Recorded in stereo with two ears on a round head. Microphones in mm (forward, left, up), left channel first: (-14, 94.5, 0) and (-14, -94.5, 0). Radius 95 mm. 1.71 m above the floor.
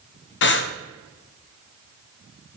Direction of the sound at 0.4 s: 60° left (ahead or behind).